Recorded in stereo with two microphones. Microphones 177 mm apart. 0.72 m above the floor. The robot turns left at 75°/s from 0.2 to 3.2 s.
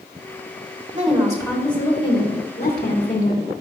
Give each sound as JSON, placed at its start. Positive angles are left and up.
{"t": 0.9, "sound": "a woman speaking", "azimuth_deg": -130, "distance_m": 2.0}